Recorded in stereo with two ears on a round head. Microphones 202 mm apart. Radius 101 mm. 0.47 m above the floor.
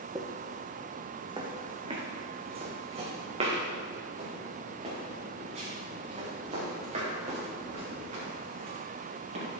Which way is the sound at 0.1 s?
15° right (ahead or behind).